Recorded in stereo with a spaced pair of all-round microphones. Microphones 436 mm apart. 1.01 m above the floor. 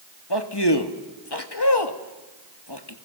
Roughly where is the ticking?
No ticking in this recording.